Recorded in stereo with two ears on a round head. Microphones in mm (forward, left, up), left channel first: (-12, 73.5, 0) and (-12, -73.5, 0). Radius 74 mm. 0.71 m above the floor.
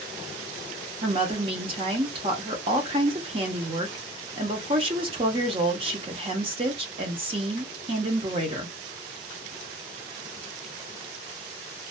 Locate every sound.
1.0 s a woman speaking: 35° right (ahead or behind), 0.7 m